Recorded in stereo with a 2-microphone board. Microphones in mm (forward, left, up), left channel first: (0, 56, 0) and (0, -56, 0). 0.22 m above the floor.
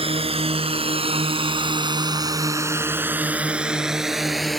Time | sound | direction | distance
0.0 | a drone | 60° right (ahead or behind) | ?